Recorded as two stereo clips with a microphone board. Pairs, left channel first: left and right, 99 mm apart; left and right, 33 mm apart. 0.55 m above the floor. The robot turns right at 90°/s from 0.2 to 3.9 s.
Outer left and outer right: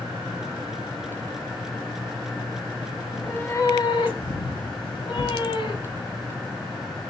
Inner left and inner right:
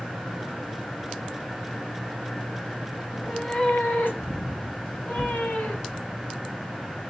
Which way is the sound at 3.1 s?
10° right.